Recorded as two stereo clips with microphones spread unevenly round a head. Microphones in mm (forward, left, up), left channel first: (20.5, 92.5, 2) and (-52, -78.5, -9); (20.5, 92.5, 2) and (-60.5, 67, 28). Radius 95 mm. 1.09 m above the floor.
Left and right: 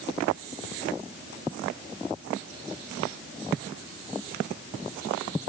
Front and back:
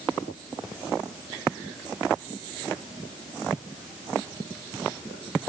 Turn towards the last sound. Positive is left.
No sound to turn to.